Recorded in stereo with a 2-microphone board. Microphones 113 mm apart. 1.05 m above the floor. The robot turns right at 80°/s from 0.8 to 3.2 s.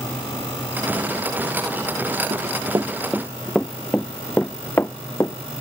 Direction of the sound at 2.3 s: 70° right (ahead or behind).